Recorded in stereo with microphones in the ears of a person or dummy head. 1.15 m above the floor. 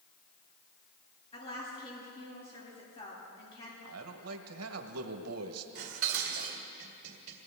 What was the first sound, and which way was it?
A woman speaking, 30° left (ahead or behind).